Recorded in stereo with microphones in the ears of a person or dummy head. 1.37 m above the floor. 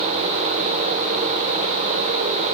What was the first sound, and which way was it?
Only background noise.